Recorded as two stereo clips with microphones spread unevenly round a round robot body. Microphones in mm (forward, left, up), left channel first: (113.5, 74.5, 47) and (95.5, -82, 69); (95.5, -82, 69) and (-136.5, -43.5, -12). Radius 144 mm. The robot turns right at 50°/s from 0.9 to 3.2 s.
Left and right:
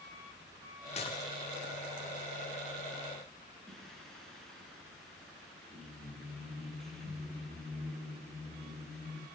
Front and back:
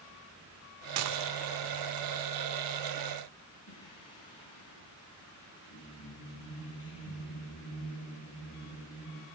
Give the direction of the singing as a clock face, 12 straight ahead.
12 o'clock.